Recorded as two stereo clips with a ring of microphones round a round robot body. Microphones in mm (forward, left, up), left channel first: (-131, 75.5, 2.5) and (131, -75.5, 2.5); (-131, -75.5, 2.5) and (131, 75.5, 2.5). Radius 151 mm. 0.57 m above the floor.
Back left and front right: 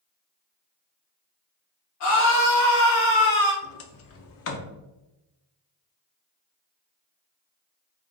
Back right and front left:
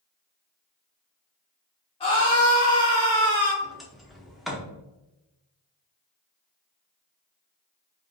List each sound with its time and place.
2.0 s a scream: 140° left, 1.2 m; by 3.5 s 130° left, 2 m
3.6 s a sliding door: 120° left, 0.6 m